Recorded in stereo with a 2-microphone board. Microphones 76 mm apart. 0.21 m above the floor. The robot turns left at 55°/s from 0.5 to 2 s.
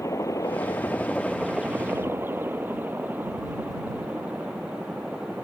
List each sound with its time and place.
0.0 s a helicopter: 40° left (ahead or behind); by 5.4 s 10° right (ahead or behind)